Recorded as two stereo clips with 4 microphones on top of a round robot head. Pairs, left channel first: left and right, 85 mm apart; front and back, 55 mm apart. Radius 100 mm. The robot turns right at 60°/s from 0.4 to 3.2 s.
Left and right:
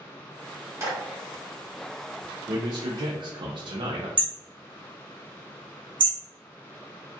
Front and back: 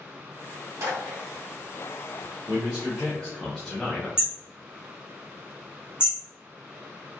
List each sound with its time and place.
0.8 s a clap: 150° right, 1.4 m; by 1.0 s 140° right, 1.4 m
2.5 s a man speaking: 125° right, 0.7 m; by 4.1 s 80° right, 0.7 m
4.2 s hammering: 100° right, 0.7 m